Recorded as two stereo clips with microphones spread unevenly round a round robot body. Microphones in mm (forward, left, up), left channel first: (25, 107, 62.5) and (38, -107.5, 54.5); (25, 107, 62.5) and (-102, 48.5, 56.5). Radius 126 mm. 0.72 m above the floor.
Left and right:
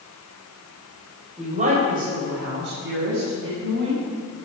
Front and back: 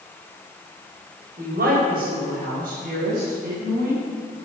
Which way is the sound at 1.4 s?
150° right.